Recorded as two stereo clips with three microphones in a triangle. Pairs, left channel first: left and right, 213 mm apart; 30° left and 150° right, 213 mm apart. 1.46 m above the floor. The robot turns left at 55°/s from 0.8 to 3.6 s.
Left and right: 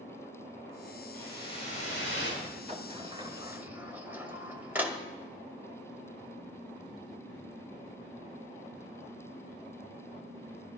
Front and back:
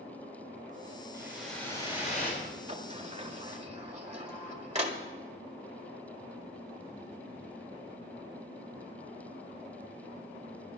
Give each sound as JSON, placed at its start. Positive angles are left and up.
{"t": 1.1, "sound": "a whoosh", "azimuth_deg": 140, "distance_m": 4.5}
{"t": 2.7, "sound": "a sliding door", "azimuth_deg": -115, "distance_m": 1.4}